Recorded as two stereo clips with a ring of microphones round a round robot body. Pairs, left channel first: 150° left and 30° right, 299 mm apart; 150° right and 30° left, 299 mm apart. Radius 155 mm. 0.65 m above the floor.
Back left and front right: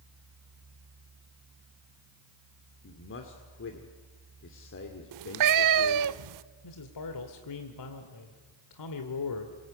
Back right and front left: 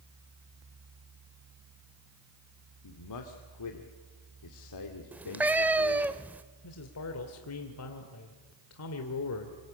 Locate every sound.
2.8 s a man speaking: 165° right, 2 m
5.1 s a cat meowing: 55° right, 0.6 m
6.6 s a man speaking: 170° left, 2 m